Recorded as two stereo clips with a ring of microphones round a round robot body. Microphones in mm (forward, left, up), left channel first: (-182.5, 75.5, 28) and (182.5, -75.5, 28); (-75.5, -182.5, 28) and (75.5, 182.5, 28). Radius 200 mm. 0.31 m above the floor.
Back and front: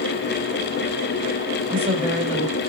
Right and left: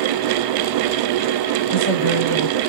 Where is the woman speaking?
110° right, 1.7 m.